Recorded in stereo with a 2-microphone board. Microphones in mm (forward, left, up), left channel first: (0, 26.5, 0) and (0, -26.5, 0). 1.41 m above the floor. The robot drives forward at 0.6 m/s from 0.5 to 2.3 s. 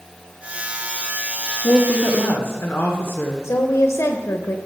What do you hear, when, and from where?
1.6 s a woman speaking: 60° left (ahead or behind), 1.1 m; by 3.4 s 45° left (ahead or behind), 1.3 m
3.4 s a woman speaking: 65° left (ahead or behind), 0.9 m